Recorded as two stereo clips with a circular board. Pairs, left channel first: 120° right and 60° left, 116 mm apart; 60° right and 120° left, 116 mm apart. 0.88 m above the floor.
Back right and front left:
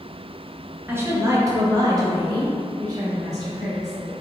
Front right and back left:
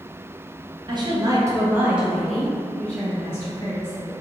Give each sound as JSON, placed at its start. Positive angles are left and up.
{"t": 0.9, "sound": "a woman speaking", "azimuth_deg": 120, "distance_m": 0.8}